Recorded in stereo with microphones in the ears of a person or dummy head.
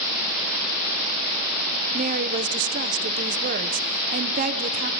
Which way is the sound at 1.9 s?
40° right (ahead or behind).